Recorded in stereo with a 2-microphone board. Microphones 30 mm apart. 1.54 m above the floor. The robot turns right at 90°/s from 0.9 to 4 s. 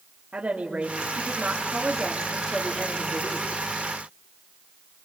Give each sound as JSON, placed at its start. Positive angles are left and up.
{"t": 0.3, "sound": "a woman speaking", "azimuth_deg": -120, "distance_m": 3.0}